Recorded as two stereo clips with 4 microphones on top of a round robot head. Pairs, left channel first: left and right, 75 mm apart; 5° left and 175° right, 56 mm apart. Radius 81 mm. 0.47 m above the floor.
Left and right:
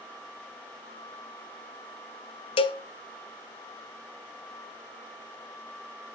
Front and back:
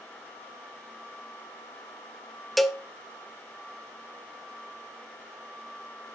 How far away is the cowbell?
About 1.0 m.